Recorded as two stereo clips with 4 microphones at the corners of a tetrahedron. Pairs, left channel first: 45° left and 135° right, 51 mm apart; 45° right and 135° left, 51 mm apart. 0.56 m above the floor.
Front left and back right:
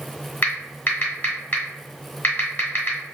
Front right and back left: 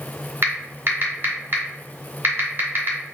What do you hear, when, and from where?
0.4 s typing on a keyboard: 95° left, 0.9 m